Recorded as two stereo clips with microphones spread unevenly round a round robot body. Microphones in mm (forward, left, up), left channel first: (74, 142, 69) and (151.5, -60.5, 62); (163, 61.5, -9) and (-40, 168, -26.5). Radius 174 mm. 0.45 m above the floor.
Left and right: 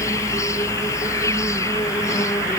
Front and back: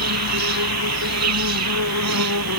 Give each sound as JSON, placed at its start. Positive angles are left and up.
{"t": 0.0, "sound": "an insect", "azimuth_deg": -170}